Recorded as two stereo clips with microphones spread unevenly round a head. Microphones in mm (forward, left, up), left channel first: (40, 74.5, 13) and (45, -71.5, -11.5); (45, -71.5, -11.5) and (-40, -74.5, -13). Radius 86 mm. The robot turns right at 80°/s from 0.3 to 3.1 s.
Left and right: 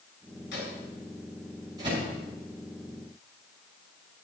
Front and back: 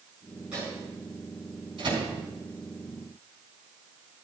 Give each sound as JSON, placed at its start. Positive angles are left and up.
{"t": 0.5, "sound": "a microwave", "azimuth_deg": 95, "distance_m": 6.5}